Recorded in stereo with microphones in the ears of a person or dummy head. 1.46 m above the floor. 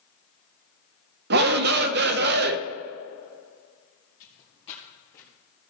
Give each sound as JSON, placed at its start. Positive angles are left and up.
{"t": 1.3, "sound": "a shout", "side_deg": -50, "distance_m": 0.6}
{"t": 4.2, "sound": "footsteps", "side_deg": 40, "distance_m": 2.5}